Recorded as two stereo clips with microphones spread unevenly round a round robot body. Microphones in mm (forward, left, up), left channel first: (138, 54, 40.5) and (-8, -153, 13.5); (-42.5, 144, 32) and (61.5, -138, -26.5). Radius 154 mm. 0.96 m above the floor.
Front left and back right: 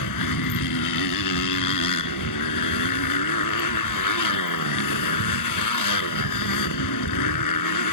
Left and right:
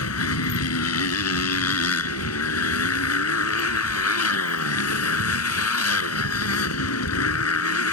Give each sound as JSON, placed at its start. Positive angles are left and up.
{"t": 0.0, "sound": "a motorcycle", "azimuth_deg": 70}